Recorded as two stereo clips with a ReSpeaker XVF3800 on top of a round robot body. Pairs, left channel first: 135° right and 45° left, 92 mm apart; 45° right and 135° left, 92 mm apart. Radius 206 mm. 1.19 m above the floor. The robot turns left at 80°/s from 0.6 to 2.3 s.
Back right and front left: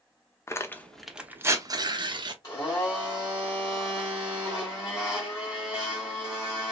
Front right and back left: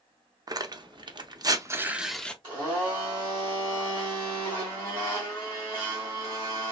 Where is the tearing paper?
170° left, 0.7 m; by 2.3 s 35° left, 0.7 m.